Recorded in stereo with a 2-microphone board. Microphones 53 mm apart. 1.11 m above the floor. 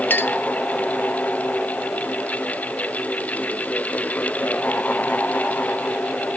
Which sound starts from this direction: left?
A clink, at 0.1 s.